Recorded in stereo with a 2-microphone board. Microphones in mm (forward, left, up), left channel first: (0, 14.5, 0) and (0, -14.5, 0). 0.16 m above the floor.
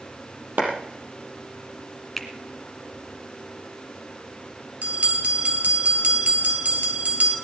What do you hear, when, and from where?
0.6 s a clap: 75° right (ahead or behind), 4.5 m
2.2 s a finger snap: 5° left (ahead or behind), 1.8 m
4.8 s a bell: 55° right (ahead or behind), 2.5 m